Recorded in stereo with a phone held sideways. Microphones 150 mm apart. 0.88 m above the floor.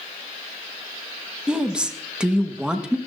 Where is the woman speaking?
5° right (ahead or behind), 1.1 m.